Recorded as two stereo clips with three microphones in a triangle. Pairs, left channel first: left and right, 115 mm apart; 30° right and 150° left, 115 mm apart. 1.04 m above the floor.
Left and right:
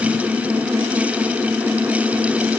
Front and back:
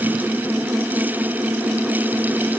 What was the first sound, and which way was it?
Only background noise.